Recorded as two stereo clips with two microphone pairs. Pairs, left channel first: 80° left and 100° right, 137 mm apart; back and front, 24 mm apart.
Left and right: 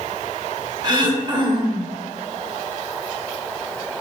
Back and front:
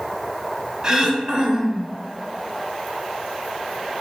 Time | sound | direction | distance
0.8 | throat clearing | 55° right | 0.5 m